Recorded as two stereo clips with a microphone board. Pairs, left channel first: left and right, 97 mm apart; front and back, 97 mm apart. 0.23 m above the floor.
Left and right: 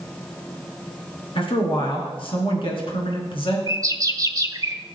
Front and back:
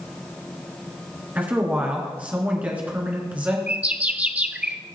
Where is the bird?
115° right, 0.8 m.